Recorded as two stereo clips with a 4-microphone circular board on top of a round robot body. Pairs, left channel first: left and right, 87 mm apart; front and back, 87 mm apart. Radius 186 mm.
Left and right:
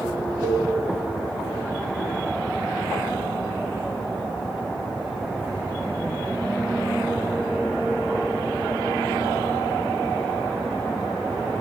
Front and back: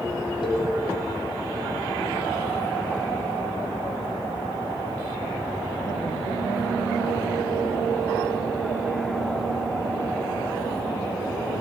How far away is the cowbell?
About 1.7 m.